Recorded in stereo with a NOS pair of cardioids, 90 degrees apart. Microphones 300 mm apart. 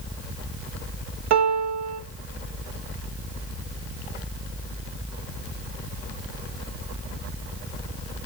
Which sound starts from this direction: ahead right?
A piano, at 1.3 s.